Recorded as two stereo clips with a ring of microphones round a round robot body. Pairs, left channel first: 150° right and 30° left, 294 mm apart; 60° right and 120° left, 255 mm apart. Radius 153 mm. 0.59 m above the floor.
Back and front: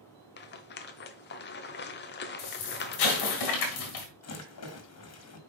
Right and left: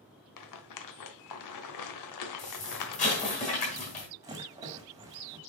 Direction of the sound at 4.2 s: 165° right.